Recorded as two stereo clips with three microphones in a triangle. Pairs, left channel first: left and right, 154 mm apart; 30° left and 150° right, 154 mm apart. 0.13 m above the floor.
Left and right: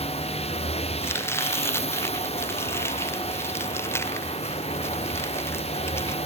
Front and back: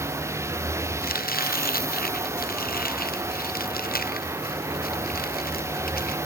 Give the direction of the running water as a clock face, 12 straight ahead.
7 o'clock.